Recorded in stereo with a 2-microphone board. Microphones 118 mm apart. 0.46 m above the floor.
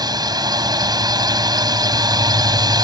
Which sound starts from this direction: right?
A drone, at 0.0 s.